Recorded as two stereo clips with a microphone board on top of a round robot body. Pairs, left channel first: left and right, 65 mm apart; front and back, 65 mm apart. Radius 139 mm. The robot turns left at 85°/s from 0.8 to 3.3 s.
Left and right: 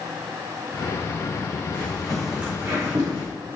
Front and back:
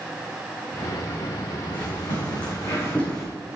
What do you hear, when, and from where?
1.7 s footsteps: 40° left, 3.5 m; by 3.3 s 95° right, 2.5 m